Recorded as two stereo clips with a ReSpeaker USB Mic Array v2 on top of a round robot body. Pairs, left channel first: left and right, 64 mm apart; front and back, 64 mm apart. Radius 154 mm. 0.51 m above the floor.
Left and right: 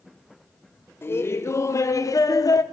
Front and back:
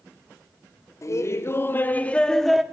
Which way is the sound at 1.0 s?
35° left.